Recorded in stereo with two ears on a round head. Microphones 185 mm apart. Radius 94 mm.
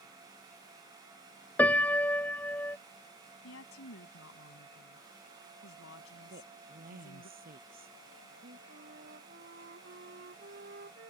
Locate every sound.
1.6 s a piano: 10° left (ahead or behind)
3.4 s a woman speaking: 70° left (ahead or behind)
6.3 s a woman speaking: 50° right (ahead or behind)
8.7 s a flute: 50° right (ahead or behind)